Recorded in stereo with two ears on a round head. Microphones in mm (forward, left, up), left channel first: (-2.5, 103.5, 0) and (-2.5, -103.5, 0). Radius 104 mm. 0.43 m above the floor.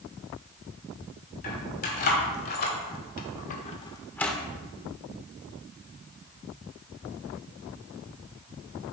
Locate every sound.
1.4 s keys jangling: 40° left (ahead or behind), 2.5 m; by 4.4 s centre (ahead or behind), 0.9 m